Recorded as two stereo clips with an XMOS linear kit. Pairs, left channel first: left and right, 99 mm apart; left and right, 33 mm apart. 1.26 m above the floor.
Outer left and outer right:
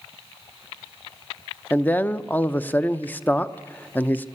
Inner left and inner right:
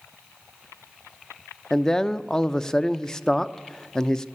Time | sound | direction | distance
1.7 | a man speaking | 15° left (ahead or behind) | 0.7 m